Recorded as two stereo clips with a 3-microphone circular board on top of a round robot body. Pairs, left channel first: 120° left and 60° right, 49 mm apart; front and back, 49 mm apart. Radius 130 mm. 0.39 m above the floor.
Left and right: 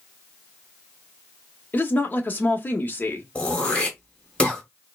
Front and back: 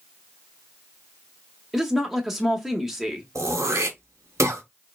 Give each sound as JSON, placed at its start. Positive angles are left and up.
{"t": 1.7, "sound": "a woman speaking", "azimuth_deg": 95, "distance_m": 1.0}
{"t": 3.4, "sound": "throat clearing", "azimuth_deg": -175, "distance_m": 1.3}